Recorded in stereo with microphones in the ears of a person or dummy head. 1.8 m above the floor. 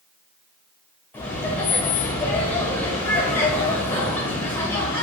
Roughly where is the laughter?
Centre.